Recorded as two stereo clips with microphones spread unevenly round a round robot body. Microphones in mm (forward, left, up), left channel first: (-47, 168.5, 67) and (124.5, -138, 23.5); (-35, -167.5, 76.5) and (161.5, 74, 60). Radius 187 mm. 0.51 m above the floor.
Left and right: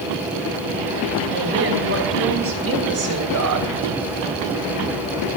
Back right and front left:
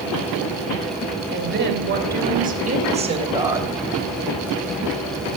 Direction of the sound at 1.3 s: Straight ahead.